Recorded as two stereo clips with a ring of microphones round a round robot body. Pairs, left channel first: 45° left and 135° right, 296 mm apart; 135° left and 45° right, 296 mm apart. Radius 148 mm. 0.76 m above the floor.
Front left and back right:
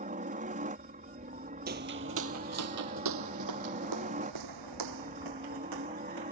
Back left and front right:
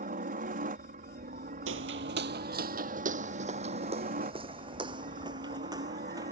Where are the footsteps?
85° right; by 6.3 s 125° right.